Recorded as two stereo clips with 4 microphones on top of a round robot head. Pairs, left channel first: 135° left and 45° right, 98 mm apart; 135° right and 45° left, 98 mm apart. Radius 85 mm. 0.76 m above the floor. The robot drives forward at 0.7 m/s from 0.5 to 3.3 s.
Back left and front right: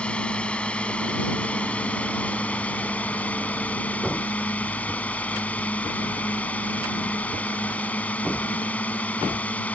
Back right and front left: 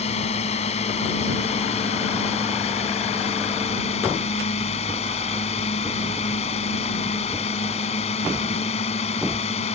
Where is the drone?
145° right.